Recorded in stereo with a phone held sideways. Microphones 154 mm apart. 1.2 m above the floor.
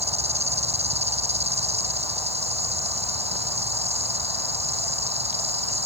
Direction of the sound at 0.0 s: 45° right (ahead or behind).